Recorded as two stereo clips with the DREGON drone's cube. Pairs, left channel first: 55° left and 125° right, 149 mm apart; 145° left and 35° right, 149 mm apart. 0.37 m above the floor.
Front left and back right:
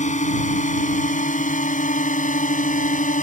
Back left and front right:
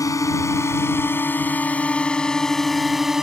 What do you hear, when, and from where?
0.0 s a drone: 80° left; by 3.2 s 50° left